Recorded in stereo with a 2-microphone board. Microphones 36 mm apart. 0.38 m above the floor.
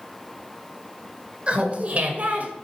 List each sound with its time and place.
1.5 s laughter: 35° right (ahead or behind), 1.4 m; by 2.5 s 50° right (ahead or behind), 1.8 m